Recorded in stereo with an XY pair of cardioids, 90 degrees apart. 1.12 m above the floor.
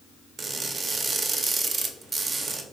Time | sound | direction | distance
0.4 | crushing | 45° right | 0.5 m